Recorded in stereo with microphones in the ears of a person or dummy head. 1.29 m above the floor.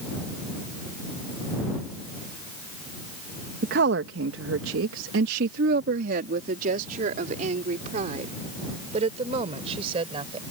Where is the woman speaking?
60° right (ahead or behind); by 10.4 s 30° right (ahead or behind).